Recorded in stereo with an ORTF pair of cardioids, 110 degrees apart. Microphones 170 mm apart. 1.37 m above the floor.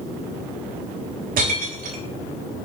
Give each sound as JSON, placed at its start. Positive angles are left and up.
{"t": 1.4, "sound": "breaking glass", "azimuth_deg": -60, "distance_m": 3.0}